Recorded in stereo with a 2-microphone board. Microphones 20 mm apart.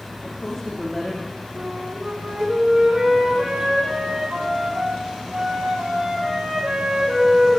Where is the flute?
70° right (ahead or behind), 4.5 m.